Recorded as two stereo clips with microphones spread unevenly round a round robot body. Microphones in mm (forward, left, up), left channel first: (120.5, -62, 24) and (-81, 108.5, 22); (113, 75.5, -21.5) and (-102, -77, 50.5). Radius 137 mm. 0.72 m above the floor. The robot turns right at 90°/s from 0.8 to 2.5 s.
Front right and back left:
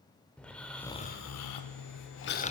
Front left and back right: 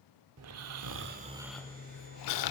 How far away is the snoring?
About 0.6 m.